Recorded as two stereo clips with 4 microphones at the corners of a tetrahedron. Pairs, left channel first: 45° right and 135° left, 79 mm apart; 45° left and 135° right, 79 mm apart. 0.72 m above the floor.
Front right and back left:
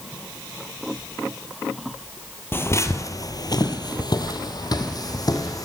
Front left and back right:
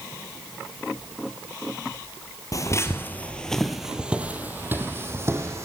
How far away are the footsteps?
About 1.2 m.